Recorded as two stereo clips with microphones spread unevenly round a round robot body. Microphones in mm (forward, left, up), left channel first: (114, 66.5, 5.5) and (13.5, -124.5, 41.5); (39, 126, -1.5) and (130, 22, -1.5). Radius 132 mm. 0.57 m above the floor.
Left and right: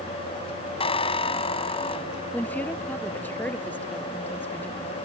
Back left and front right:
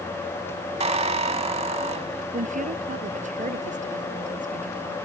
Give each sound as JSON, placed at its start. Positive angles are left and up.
{"t": 0.8, "sound": "a squeak", "azimuth_deg": -5}
{"t": 2.3, "sound": "a woman speaking", "azimuth_deg": -20}